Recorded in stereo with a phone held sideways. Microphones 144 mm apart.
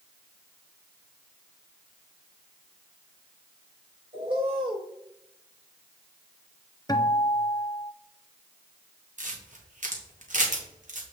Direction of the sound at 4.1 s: 35° right (ahead or behind).